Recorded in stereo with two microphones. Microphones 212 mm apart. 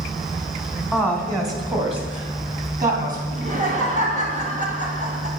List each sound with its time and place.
0.9 s a woman speaking: 5° right (ahead or behind), 1.3 m; by 3.2 s 40° right (ahead or behind), 3 m
3.3 s laughter: 40° right (ahead or behind), 2.5 m